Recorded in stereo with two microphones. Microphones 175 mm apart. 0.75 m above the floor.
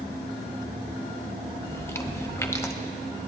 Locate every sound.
1.7 s chewing: 15° left (ahead or behind), 0.8 m